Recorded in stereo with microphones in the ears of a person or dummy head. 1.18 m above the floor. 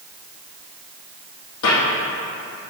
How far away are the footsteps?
About 2.5 m.